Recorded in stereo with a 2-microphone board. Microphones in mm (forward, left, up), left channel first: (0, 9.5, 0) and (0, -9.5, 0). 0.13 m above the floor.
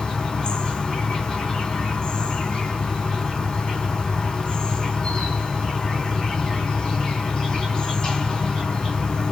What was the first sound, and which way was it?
An insect, 45° left (ahead or behind).